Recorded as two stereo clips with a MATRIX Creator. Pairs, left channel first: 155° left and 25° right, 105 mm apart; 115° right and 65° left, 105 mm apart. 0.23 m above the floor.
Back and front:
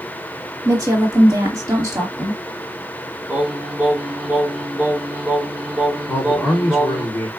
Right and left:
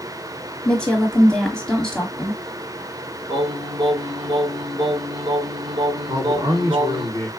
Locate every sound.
0.7 s a woman speaking: 35° right, 1.2 m
3.3 s singing: 55° left, 1.0 m
6.1 s a man speaking: 95° left, 1.9 m